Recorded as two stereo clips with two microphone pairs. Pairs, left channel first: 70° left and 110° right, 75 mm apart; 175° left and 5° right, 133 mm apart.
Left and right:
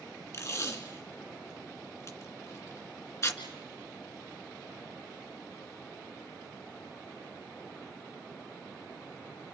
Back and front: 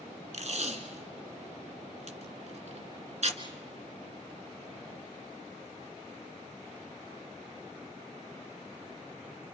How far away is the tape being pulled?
About 1.9 m.